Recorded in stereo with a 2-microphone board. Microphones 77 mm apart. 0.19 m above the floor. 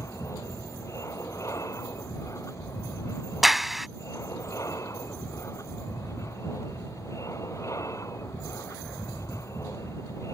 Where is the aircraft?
45° left (ahead or behind).